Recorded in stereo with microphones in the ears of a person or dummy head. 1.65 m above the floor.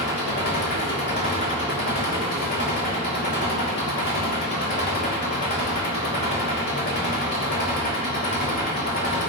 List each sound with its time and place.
0.0 s an engine running: 50° left (ahead or behind), 2.5 m